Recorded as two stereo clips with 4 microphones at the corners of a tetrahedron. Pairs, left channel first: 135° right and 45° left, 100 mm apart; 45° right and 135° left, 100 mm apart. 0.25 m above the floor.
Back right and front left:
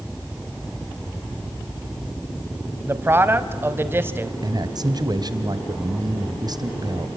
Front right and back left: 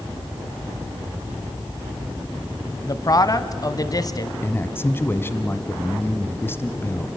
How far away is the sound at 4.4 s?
About 1.4 m.